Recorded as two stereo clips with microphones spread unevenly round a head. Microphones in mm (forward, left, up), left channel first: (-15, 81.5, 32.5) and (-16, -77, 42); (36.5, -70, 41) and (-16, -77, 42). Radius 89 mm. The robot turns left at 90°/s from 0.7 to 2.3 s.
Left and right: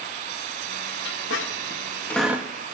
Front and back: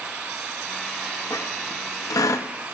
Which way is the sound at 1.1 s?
105° left.